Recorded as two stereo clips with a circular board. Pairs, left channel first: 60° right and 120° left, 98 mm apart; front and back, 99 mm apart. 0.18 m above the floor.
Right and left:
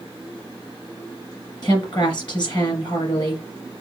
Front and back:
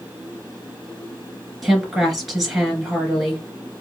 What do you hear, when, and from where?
1.6 s a woman speaking: 95° right, 2 m